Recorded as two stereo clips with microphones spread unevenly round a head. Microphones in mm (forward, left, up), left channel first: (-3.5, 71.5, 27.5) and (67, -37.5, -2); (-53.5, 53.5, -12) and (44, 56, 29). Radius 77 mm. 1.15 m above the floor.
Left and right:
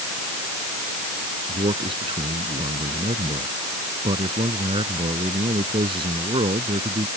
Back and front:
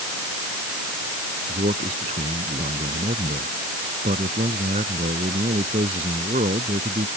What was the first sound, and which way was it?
A man speaking, 5° right.